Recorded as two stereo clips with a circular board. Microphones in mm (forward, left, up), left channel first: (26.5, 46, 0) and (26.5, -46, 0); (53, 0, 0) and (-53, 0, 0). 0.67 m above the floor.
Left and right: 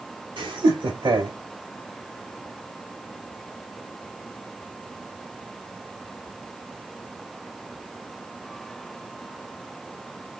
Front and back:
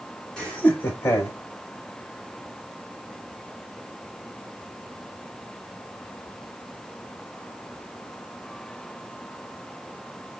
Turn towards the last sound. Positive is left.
turn(degrees=-60)